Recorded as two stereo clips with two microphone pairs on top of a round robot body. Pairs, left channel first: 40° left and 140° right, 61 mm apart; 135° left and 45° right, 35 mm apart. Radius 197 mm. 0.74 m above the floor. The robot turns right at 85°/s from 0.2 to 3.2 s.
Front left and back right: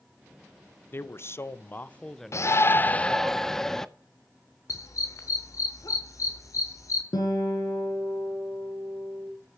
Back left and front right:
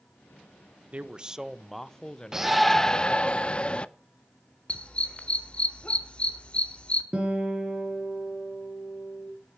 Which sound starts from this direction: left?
A dog barking, at 4.7 s.